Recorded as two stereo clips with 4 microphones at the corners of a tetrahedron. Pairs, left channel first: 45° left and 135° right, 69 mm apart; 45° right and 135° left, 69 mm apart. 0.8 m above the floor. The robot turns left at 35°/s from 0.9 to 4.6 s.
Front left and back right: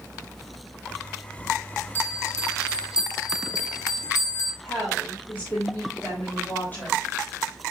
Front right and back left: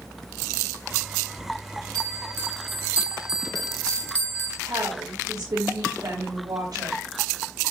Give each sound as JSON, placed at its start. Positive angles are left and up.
{"t": 1.9, "sound": "a bell", "azimuth_deg": 100, "distance_m": 1.6}
{"t": 4.6, "sound": "a woman speaking", "azimuth_deg": 110, "distance_m": 4.0}